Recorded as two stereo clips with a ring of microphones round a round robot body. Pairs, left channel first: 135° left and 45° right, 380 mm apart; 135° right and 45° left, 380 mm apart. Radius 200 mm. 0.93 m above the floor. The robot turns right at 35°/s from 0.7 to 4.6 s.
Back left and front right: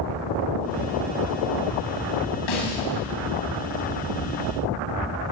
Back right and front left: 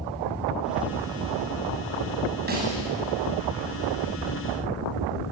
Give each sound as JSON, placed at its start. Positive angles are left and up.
{"t": 2.5, "sound": "a snare drum", "azimuth_deg": 110, "distance_m": 8.0}